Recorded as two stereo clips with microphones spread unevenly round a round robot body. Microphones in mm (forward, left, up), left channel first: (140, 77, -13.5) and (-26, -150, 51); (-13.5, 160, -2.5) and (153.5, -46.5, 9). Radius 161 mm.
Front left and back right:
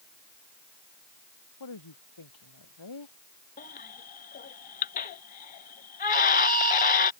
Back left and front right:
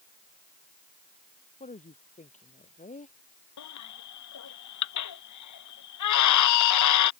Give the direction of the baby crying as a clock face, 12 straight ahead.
8 o'clock.